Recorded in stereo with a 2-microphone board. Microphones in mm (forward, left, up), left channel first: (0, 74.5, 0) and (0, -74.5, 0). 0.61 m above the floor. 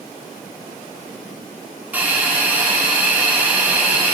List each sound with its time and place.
1.9 s a hiss: 10° right (ahead or behind), 1.2 m